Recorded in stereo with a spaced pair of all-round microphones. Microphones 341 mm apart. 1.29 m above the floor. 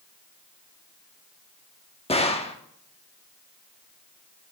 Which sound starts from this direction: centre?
A gunshot, at 2.1 s.